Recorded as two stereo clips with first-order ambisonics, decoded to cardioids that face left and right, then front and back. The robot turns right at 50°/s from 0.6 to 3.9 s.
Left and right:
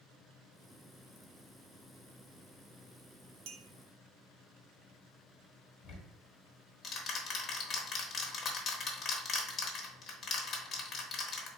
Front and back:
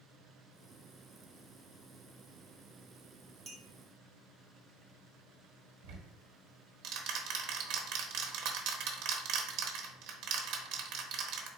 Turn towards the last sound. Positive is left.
turn(degrees=155)